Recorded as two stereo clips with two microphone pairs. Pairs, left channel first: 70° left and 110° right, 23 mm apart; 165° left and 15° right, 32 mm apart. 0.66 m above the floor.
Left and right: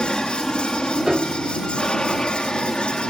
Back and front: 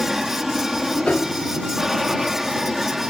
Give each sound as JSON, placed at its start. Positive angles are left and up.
{"t": 0.0, "sound": "an aircraft", "azimuth_deg": 50}
{"t": 1.1, "sound": "a piano", "azimuth_deg": -170}